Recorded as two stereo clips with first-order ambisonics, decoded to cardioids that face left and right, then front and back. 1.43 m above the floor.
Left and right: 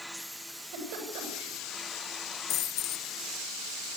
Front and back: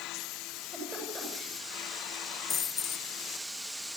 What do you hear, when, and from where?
0.5 s a giggle: 100° right, 9 m
2.5 s a dropped coin: 65° left, 2.5 m